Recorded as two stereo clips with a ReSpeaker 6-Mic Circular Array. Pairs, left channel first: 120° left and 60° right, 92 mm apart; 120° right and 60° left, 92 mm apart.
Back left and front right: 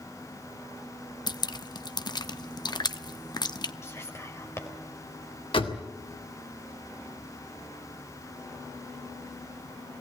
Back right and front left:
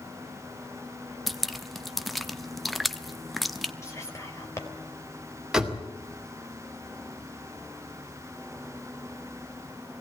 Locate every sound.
1.3 s dripping: 150° left, 0.7 m
3.8 s whispering: straight behind, 3.5 m
5.5 s a door slam: 145° left, 2 m